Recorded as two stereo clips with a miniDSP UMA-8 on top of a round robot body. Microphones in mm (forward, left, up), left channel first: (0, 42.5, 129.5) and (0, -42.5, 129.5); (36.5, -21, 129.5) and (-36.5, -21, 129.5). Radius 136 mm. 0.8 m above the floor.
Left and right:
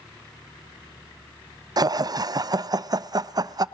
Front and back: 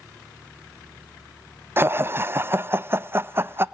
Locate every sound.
1.8 s laughter: 125° right, 0.5 m